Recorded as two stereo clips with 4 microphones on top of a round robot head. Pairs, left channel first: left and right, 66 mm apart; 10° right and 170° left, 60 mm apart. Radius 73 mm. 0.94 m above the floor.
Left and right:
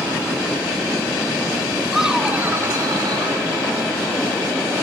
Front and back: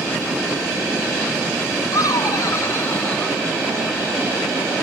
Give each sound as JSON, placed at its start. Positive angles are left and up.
{"t": 1.9, "sound": "laughter", "azimuth_deg": 0, "distance_m": 1.8}